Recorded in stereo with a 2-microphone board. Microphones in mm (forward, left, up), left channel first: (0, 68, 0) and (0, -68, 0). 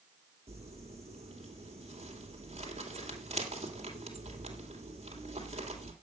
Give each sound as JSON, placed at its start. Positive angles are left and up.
{"t": 0.5, "sound": "crumpling", "side_deg": -50, "distance_m": 2.5}